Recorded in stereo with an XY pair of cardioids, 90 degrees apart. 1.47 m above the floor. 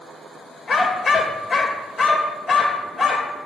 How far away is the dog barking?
About 3 m.